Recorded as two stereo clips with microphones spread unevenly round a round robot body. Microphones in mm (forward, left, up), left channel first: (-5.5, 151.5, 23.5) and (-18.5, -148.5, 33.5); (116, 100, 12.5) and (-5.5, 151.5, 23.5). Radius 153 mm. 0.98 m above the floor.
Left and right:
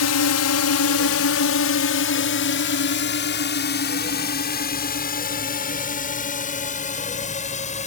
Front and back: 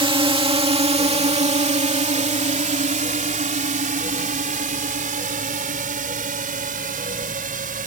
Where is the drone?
110° left; by 7.9 s 155° left.